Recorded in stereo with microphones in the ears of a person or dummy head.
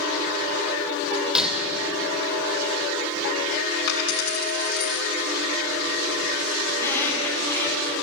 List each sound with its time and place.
1.4 s breaking glass: centre (ahead or behind), 3 m
3.9 s a dropped coin: 70° left (ahead or behind), 4.5 m
6.7 s a squeak: 15° left (ahead or behind), 7 m